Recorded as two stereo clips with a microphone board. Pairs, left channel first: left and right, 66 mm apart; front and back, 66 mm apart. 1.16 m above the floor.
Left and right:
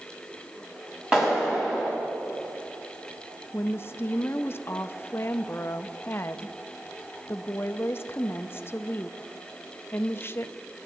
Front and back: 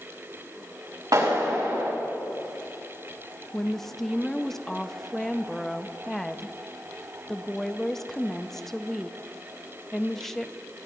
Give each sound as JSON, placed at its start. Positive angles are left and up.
{"t": 1.1, "sound": "a clap", "azimuth_deg": -170, "distance_m": 6.0}
{"t": 3.5, "sound": "a woman speaking", "azimuth_deg": 80, "distance_m": 0.6}